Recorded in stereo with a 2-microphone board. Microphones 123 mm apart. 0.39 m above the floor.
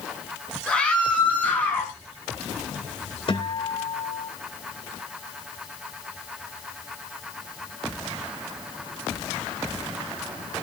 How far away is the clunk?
No clunk in this recording.